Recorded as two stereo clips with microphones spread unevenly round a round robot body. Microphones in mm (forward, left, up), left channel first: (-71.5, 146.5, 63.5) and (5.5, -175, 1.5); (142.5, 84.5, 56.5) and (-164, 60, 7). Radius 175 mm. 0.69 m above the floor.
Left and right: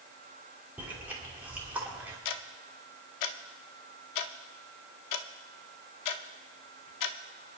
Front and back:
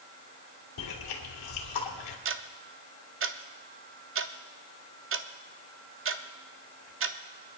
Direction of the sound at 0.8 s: 5° left.